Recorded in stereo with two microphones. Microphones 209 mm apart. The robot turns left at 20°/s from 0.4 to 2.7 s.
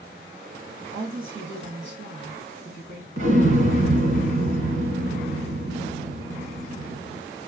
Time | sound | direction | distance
0.9 | a woman speaking | 85° right | 2 m
3.2 | an explosion | 75° right (ahead or behind) | 1.7 m